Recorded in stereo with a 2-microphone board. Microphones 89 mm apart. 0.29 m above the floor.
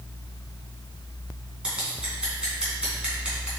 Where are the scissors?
10° right (ahead or behind), 2.5 m.